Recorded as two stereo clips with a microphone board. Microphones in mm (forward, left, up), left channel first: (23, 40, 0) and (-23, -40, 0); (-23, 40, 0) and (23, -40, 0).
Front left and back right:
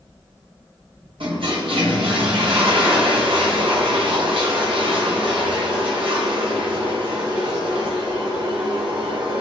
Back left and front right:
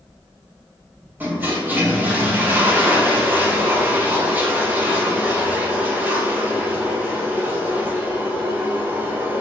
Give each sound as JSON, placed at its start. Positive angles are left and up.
{"t": 1.2, "sound": "a toilet flushing", "azimuth_deg": -130, "distance_m": 0.8}